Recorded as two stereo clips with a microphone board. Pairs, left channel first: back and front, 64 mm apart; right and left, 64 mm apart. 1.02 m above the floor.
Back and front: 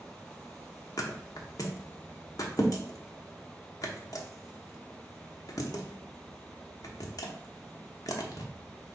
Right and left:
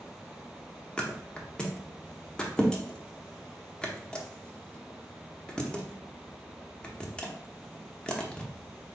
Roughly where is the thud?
Behind.